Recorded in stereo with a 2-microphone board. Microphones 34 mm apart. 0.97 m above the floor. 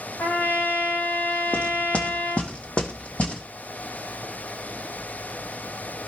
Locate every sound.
0.2 s a trumpet: 75° left (ahead or behind), 2 m
1.5 s knocking: 40° left (ahead or behind), 1.7 m